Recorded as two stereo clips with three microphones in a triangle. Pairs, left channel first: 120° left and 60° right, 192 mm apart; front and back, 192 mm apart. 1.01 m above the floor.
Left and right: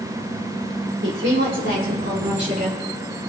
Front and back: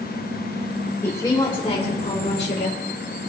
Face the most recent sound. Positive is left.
turn(degrees=-20)